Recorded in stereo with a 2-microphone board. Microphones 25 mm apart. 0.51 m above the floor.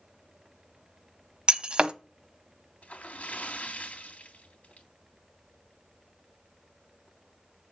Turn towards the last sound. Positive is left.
turn(degrees=75)  # may be behind; listen again after turning